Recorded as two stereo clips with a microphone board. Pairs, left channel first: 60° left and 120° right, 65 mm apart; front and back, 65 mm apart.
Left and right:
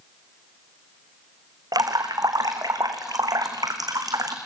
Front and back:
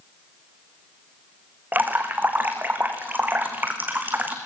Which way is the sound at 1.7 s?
120° right.